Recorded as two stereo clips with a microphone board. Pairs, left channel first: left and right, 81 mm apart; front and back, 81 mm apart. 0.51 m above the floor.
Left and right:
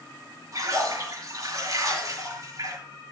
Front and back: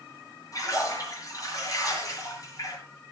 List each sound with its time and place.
0.5 s a splash: 45° right, 5.5 m